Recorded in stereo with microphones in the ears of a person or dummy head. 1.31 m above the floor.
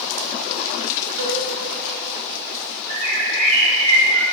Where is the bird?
35° right (ahead or behind), 3 m.